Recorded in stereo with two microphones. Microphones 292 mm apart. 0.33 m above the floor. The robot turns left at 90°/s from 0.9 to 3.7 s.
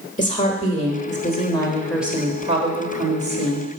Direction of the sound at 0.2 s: 25° left (ahead or behind).